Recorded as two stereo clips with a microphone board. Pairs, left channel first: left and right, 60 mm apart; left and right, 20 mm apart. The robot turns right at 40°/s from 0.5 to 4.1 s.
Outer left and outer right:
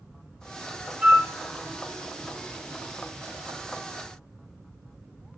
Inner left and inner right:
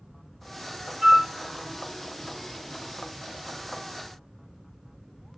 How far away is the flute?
About 0.9 m.